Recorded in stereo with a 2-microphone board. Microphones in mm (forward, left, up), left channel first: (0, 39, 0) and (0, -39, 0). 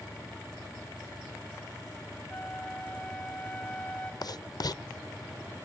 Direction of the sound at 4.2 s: 55° left (ahead or behind).